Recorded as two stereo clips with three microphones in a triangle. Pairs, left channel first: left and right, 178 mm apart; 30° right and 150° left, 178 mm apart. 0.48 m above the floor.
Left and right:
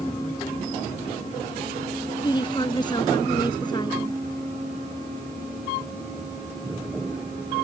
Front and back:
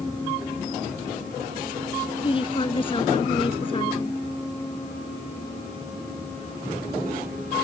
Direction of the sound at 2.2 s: 25° left.